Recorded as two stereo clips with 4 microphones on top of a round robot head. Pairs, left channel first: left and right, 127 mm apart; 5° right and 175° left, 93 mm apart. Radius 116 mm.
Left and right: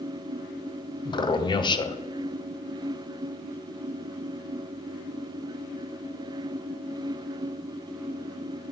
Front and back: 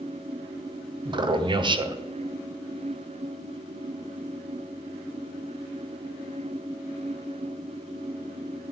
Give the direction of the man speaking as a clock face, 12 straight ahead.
7 o'clock.